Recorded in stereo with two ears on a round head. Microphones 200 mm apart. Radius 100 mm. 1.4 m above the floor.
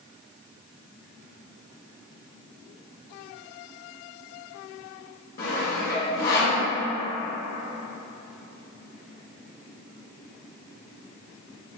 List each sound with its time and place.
5.4 s sawing: 45° left (ahead or behind), 0.9 m